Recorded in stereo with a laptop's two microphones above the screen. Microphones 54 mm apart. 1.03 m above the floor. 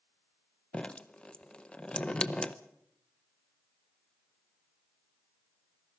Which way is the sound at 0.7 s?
20° left (ahead or behind).